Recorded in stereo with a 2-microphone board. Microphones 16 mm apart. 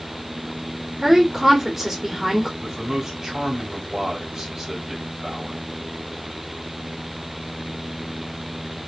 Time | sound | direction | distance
1.0 | a woman speaking | 20° right (ahead or behind) | 1.7 m
2.6 | a man speaking | 30° right (ahead or behind) | 2.5 m